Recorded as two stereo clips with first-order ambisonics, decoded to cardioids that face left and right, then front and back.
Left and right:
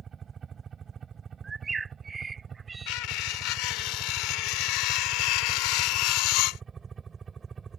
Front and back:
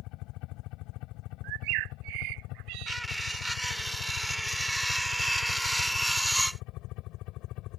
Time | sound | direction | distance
0.0 | a helicopter | 25° right | ?
1.4 | a bird | 165° right | ?
2.9 | cutlery clinking | 95° left | ?